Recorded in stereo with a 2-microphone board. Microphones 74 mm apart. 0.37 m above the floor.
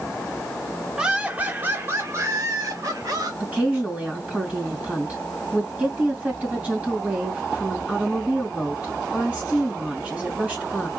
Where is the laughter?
10° right (ahead or behind), 1.1 m; by 3.3 s 55° right (ahead or behind), 1.7 m.